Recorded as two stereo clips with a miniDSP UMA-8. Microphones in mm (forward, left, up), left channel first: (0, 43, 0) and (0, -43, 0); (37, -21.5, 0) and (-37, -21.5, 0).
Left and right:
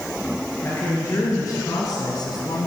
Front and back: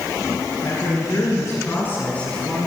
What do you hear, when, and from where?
0.6 s a woman speaking: 30° left, 3.5 m; by 2.7 s 85° left, 2 m